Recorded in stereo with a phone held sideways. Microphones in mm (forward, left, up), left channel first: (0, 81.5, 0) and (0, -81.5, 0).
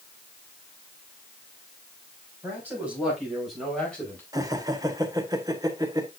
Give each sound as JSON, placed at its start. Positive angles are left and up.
{"t": 2.4, "sound": "a man speaking", "side_deg": -10, "distance_m": 6.0}
{"t": 4.3, "sound": "laughter", "side_deg": -20, "distance_m": 1.5}